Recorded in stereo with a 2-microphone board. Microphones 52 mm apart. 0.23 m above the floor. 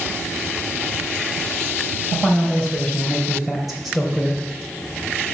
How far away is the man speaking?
About 4.5 m.